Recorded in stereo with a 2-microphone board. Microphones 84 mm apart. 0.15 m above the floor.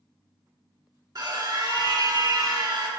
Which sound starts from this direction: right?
A scream, at 1.1 s.